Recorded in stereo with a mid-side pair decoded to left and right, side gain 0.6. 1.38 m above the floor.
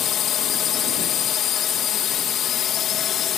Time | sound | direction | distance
0.0 | a drone | 55° left | ?